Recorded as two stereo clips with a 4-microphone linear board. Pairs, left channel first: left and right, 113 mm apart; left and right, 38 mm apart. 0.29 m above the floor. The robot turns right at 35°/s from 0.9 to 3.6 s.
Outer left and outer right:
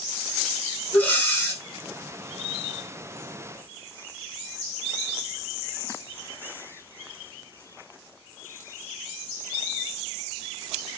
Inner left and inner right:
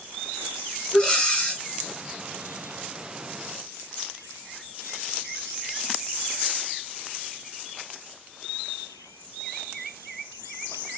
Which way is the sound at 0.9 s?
15° left (ahead or behind).